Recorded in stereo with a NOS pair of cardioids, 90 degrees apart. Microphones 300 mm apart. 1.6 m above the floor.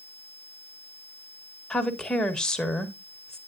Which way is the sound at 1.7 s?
Straight ahead.